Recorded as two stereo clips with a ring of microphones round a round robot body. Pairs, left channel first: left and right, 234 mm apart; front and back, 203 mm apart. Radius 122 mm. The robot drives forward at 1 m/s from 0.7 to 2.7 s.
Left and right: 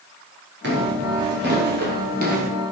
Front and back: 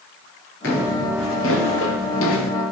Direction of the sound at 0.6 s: 45° right.